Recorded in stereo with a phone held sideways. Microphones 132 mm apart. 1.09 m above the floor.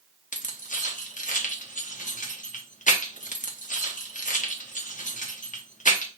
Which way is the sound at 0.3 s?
75° left (ahead or behind).